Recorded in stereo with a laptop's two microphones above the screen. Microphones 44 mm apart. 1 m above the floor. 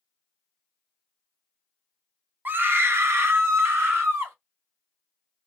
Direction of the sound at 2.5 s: 45° right (ahead or behind).